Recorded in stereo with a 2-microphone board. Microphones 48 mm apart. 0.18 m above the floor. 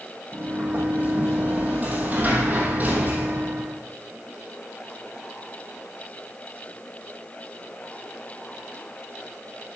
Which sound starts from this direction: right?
A sliding door, at 0.3 s.